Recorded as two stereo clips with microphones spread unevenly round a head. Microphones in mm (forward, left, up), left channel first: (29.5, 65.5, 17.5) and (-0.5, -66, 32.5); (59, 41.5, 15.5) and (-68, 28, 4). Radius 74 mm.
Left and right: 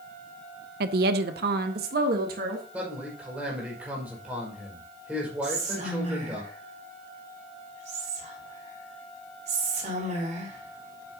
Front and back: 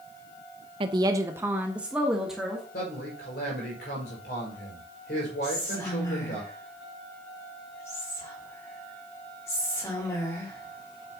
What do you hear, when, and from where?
0.8 s a woman speaking: 120° right, 0.7 m; by 2.6 s 85° right, 1.8 m
2.7 s a man speaking: 20° right, 5 m
5.4 s whispering: 65° right, 5 m